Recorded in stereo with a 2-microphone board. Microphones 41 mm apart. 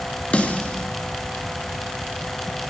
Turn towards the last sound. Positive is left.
turn(degrees=35)  # may be behind; listen again after turning